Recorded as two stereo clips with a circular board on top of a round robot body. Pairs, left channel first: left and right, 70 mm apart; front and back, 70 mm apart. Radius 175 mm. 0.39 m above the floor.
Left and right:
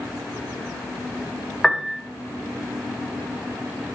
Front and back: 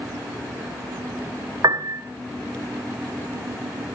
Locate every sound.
1.6 s a piano: 175° left, 2 m